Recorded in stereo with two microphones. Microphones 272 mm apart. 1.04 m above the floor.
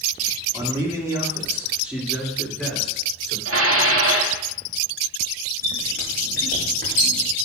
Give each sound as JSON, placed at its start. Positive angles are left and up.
{"t": 0.5, "sound": "a man speaking", "side_deg": -20, "distance_m": 2.0}
{"t": 3.5, "sound": "dishes clattering", "side_deg": -55, "distance_m": 1.4}
{"t": 5.6, "sound": "a squeak", "side_deg": -35, "distance_m": 5.0}